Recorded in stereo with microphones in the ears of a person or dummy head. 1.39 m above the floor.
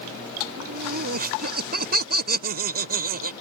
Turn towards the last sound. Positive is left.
turn(degrees=-45)  # may be behind; listen again after turning